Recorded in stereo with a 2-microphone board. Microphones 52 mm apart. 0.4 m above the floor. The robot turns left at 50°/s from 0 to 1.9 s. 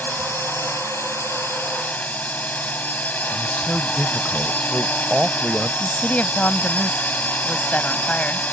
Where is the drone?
135° left; by 8.6 s 40° left.